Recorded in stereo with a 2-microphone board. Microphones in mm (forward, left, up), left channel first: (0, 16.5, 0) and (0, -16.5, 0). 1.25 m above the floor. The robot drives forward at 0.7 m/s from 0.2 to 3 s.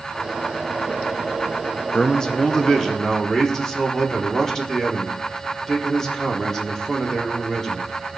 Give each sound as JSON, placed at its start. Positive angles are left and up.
{"t": 1.9, "sound": "a man speaking", "side_deg": 25, "distance_m": 0.7}